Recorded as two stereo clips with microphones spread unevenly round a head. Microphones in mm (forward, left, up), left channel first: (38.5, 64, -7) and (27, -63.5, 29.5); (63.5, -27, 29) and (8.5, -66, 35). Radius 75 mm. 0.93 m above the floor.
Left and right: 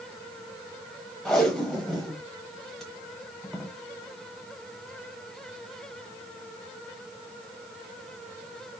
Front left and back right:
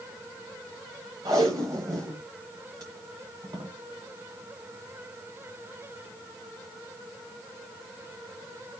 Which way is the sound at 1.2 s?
175° right.